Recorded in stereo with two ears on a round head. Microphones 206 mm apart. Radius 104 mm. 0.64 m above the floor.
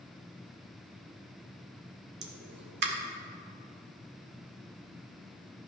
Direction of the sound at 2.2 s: 45° right (ahead or behind).